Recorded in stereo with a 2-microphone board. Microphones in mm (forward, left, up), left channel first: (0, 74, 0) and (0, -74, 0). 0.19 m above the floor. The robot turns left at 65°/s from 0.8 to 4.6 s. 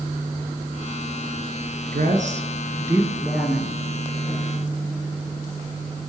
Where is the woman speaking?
95° right, 3.5 m; by 3.8 s 145° left, 3.5 m.